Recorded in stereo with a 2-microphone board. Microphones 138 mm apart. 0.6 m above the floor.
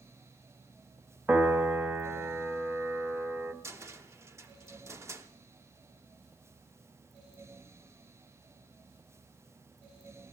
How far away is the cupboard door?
About 0.9 m.